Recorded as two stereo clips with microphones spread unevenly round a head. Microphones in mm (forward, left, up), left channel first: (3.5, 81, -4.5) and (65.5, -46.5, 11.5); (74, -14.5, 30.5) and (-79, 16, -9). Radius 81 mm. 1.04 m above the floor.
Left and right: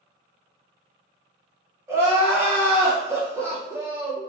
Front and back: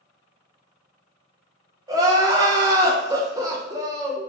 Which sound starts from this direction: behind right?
Crying, at 1.9 s.